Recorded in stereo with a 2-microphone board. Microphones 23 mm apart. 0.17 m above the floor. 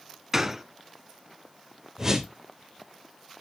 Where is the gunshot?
20° right (ahead or behind), 0.8 m.